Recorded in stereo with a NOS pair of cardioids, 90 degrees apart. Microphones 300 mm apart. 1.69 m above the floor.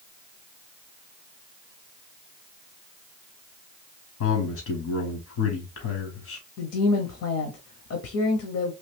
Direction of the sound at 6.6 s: 55° left.